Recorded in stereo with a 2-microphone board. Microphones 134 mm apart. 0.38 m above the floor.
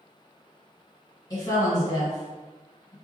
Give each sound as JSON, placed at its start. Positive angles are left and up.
{"t": 1.3, "sound": "a woman speaking", "side_deg": 30, "distance_m": 1.9}